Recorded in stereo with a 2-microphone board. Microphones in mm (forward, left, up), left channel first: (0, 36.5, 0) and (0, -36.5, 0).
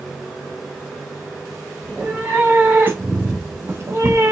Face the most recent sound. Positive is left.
turn(degrees=-35)  # may be behind; listen again after turning